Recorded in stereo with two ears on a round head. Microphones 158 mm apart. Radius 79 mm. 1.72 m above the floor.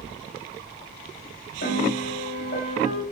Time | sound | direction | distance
1.6 | a piano | 60° left (ahead or behind) | 5 m